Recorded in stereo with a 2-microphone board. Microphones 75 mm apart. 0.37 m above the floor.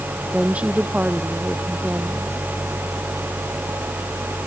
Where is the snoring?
I don't hear snoring.